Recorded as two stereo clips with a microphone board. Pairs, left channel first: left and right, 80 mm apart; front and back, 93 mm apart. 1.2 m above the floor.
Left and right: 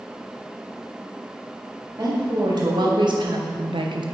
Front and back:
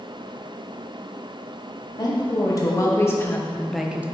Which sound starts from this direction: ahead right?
A woman speaking, at 2.0 s.